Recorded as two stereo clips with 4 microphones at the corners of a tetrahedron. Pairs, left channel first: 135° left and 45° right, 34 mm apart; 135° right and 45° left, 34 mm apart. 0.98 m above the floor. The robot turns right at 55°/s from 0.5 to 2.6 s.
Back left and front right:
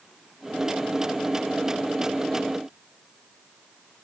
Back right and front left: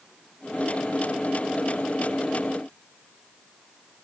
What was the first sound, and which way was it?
Only background noise.